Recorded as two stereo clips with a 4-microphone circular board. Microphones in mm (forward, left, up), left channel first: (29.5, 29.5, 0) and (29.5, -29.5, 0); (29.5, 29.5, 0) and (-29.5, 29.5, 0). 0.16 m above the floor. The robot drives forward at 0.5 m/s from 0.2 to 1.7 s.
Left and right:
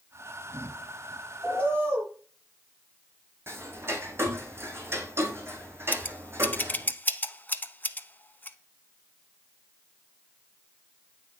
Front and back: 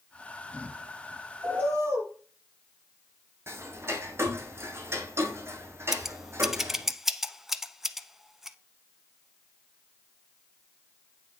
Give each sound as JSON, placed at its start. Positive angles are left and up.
{"t": 1.4, "sound": "a bird", "azimuth_deg": -135, "distance_m": 4.0}
{"t": 3.5, "sound": "ticking", "azimuth_deg": -135, "distance_m": 1.6}
{"t": 5.9, "sound": "scissors", "azimuth_deg": 100, "distance_m": 0.6}